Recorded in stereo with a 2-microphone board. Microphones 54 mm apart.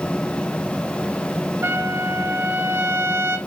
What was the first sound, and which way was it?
A trumpet, 45° right (ahead or behind).